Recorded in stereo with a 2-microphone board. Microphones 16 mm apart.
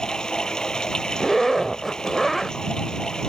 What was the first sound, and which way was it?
Running water, 60° left (ahead or behind).